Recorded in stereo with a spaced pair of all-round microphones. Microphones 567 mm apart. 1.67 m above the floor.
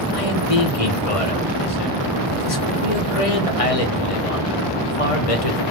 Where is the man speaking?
70° left (ahead or behind), 1.0 m.